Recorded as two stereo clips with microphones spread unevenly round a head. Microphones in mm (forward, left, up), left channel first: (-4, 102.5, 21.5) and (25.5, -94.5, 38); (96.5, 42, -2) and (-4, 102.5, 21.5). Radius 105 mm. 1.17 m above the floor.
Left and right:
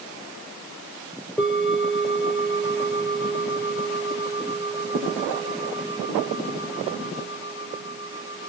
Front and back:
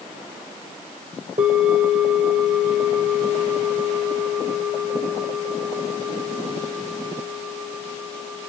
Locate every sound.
1.4 s a bell: 175° right, 1.5 m